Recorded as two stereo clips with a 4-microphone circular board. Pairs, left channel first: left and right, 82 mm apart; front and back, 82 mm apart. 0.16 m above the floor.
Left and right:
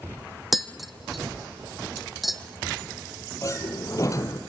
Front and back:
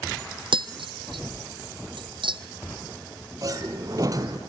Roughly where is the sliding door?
Behind left.